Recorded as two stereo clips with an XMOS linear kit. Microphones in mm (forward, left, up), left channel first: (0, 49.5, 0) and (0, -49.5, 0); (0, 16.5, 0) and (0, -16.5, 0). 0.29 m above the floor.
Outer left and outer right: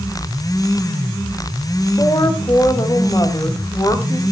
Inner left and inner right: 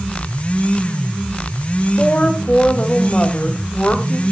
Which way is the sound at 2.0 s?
40° left (ahead or behind).